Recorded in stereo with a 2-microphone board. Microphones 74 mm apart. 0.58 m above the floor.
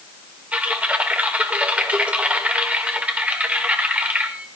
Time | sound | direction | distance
0.5 | typing on a keyboard | 15° right (ahead or behind) | 2 m